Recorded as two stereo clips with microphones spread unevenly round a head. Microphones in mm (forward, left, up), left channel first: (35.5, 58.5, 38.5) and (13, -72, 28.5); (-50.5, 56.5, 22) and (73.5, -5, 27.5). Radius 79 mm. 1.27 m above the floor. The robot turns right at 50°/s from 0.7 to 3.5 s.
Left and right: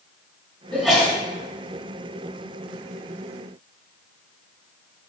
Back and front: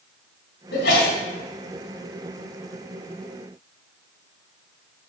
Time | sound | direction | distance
0.7 | a sneeze | 160° left | 2.5 m